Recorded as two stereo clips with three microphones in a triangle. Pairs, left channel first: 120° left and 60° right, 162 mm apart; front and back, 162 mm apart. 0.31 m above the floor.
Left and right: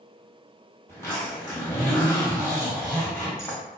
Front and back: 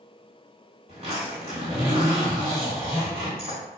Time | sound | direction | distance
0.9 | a zipper | 175° right | 1.8 m